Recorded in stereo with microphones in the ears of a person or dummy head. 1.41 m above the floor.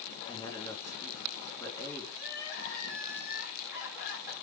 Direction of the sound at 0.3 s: 20° left (ahead or behind).